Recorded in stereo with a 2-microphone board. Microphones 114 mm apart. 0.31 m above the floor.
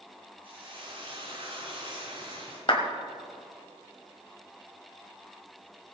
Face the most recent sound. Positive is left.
turn(degrees=45)  # may be behind; listen again after turning